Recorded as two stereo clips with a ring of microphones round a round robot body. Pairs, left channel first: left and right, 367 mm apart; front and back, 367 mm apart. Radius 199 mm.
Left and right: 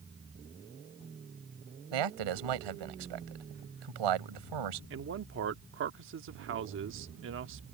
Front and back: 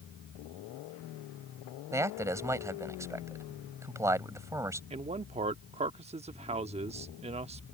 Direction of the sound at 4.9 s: 120° right.